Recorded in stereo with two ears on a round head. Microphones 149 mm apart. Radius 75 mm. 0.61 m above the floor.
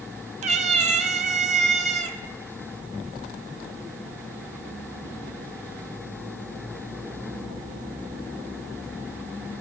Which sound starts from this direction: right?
A cat meowing, at 0.4 s.